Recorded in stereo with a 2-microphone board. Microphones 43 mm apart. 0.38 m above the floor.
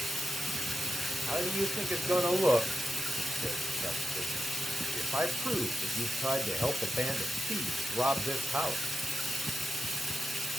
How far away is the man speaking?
About 1.2 m.